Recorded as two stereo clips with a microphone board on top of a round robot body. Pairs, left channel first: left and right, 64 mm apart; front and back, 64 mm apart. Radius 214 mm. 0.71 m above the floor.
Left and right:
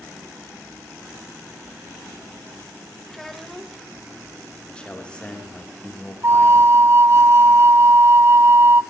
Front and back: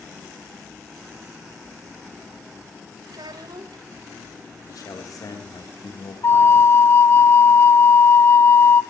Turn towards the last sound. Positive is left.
turn(degrees=-45)